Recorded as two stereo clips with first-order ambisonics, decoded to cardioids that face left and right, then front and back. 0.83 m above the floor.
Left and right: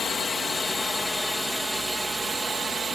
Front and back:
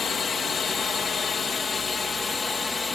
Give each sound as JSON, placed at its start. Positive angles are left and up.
{"t": 0.0, "sound": "a drone", "azimuth_deg": 40}